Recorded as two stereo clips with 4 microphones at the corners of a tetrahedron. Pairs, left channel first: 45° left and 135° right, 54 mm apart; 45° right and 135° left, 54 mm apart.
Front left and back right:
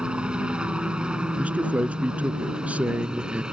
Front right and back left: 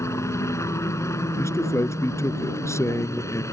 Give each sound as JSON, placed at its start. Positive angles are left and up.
{"t": 0.0, "sound": "a helicopter", "azimuth_deg": -65}
{"t": 1.4, "sound": "a man speaking", "azimuth_deg": -70}